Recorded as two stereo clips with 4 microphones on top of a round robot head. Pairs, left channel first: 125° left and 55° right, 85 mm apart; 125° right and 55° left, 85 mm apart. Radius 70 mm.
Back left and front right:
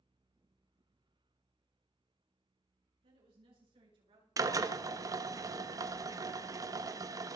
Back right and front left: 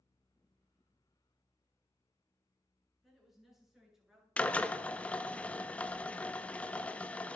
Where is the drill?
60° right, 1.2 m.